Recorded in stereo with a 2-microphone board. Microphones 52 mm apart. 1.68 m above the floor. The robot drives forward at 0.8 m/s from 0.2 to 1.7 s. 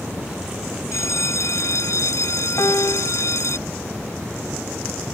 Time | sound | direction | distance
0.9 | a bell | 70° left (ahead or behind) | ?
2.6 | a piano | 80° left | ?